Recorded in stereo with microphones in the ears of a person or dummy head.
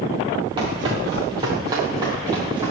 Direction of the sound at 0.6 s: 25° right (ahead or behind).